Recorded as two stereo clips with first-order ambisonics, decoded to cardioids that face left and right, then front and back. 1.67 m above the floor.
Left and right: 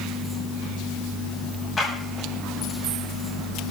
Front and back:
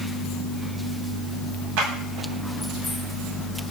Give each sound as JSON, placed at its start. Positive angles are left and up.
{"t": 1.8, "sound": "a clap", "azimuth_deg": 165, "distance_m": 8.5}